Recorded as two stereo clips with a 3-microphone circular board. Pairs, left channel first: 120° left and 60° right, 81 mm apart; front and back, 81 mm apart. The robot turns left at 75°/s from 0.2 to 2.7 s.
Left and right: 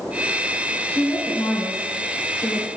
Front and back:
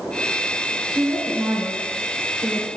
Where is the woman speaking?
175° right, 2.5 m; by 2.7 s 50° left, 2.5 m.